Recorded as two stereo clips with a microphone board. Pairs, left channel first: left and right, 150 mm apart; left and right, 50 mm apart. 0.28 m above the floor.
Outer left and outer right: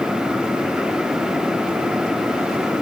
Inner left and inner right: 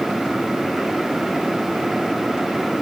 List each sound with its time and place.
Only background noise.